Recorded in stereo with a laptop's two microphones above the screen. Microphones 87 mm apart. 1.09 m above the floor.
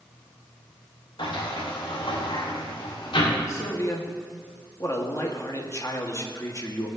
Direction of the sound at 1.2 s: 80° left.